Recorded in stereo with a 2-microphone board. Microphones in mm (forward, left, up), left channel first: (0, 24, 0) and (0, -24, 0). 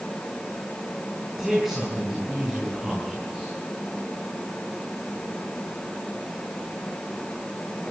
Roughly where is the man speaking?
Centre.